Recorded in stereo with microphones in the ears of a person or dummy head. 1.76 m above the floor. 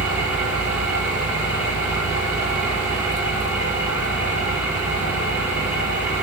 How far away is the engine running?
About 7 m.